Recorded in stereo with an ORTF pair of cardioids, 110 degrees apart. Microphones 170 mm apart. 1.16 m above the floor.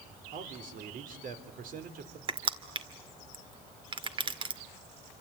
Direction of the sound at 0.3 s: 55° right.